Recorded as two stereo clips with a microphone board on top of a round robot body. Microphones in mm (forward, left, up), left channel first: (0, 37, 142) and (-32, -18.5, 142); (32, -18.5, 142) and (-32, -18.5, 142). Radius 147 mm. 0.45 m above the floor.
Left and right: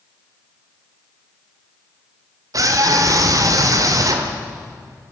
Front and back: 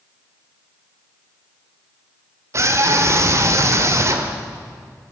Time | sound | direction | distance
2.5 | a scream | 145° right | 2 m